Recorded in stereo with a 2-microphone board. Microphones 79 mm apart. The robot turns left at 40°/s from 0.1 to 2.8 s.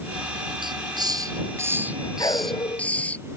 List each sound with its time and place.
0.6 s a hiss: 110° right; by 3.2 s 165° left
2.2 s a dog barking: 50° left (ahead or behind); by 2.9 s 75° left (ahead or behind)